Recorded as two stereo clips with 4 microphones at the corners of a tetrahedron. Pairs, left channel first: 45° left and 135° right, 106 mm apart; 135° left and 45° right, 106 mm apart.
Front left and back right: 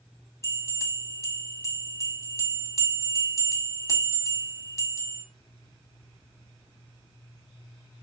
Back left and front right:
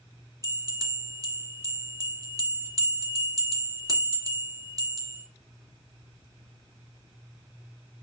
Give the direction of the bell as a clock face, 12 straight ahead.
12 o'clock.